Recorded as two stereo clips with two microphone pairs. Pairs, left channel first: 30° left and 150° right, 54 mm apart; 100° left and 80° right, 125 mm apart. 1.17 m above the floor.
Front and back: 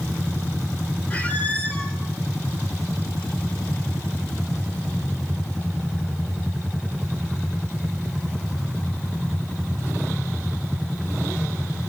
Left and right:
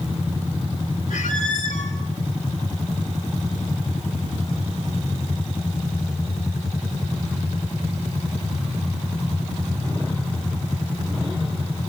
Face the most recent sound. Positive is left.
turn(degrees=95)